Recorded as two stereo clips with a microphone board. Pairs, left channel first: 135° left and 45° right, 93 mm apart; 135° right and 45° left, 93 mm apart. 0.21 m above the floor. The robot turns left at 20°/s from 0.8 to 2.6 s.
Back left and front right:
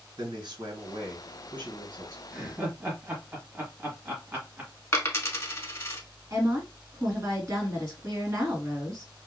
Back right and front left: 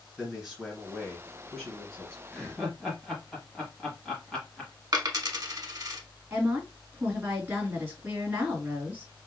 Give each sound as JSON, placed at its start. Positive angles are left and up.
{"t": 0.2, "sound": "a man speaking", "azimuth_deg": -35, "distance_m": 2.0}
{"t": 2.3, "sound": "laughter", "azimuth_deg": -55, "distance_m": 1.1}
{"t": 4.9, "sound": "a dropped coin", "azimuth_deg": 80, "distance_m": 0.8}
{"t": 6.3, "sound": "a woman speaking", "azimuth_deg": -15, "distance_m": 2.0}